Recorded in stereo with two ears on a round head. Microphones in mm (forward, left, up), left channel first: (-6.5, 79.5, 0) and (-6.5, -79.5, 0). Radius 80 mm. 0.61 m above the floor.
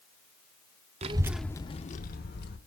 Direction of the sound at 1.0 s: 35° right (ahead or behind).